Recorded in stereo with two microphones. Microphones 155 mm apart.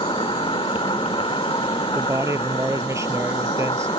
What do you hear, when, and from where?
0.0 s an insect: 35° left (ahead or behind)
1.9 s a man speaking: 20° right (ahead or behind)